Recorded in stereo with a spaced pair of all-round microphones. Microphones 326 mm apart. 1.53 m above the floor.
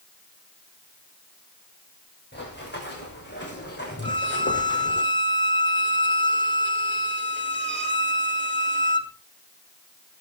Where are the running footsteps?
30° left (ahead or behind), 8 m.